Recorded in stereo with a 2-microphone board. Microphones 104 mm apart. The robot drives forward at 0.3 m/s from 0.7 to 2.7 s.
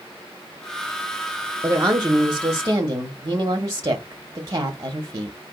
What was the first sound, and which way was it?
A woman speaking, 30° right (ahead or behind).